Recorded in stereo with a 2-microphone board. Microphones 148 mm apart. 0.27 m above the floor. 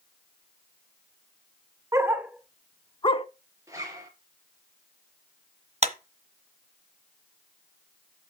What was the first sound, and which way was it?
A dog barking, 20° right (ahead or behind).